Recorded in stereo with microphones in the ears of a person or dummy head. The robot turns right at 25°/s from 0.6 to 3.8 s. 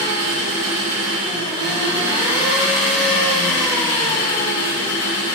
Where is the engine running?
60° right, 2.0 m; by 5.4 s 20° left, 2.0 m.